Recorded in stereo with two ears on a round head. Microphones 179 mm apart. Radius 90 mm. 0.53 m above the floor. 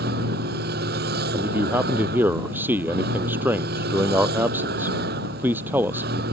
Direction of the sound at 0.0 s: 50° right (ahead or behind).